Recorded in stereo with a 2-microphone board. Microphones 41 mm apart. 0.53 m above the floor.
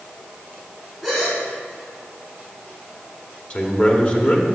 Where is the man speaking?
30° left (ahead or behind), 1.4 m.